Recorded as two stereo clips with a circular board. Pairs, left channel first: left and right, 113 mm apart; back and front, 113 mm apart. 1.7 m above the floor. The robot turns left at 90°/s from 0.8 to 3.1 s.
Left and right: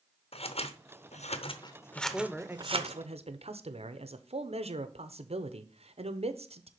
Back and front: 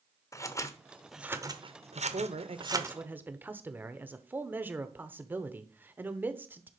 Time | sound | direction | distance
0.3 | scissors | 120° left | 0.8 m
1.9 | a man speaking | 30° left | 0.9 m